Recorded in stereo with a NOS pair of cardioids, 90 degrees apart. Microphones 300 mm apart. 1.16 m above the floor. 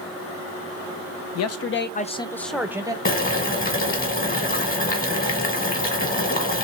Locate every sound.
1.4 s a man speaking: 65° left, 0.6 m; by 3.0 s 15° right, 0.8 m
3.0 s boiling: 30° left, 1.4 m